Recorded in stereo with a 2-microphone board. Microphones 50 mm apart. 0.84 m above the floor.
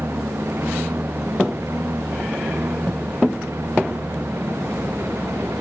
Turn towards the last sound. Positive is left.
turn(degrees=-65)  # may be behind; listen again after turning